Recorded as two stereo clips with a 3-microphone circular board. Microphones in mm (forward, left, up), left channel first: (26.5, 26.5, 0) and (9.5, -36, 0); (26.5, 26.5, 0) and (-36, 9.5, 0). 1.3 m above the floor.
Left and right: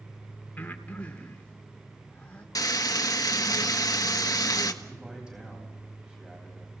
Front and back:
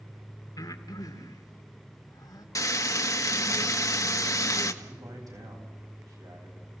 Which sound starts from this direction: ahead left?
Frying, at 2.5 s.